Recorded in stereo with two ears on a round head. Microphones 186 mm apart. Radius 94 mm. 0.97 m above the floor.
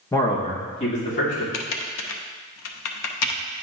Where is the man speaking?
10° left (ahead or behind), 0.9 m; by 1.4 s 40° left (ahead or behind), 3 m.